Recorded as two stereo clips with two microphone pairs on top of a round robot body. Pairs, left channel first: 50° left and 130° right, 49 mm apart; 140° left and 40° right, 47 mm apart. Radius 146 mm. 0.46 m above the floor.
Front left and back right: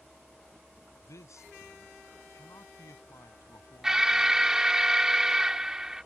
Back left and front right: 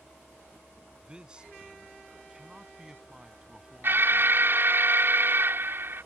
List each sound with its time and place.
1.0 s a man speaking: 30° left; by 4.4 s 45° left
3.8 s an alarm: 65° right